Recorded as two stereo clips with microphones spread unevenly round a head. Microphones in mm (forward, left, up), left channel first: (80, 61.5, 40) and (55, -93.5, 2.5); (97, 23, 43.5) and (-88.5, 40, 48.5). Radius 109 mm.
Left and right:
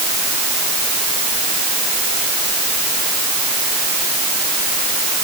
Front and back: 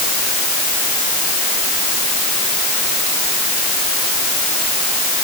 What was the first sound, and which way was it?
Only background noise.